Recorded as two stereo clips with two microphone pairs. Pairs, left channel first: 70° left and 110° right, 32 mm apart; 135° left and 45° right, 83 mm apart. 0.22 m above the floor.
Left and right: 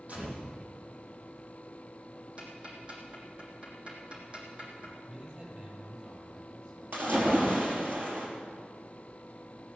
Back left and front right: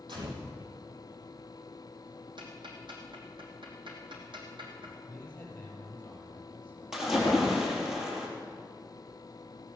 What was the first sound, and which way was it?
A gunshot, 65° right.